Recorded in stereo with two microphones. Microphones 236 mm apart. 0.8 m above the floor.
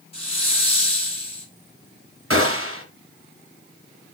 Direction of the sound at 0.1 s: 25° left (ahead or behind).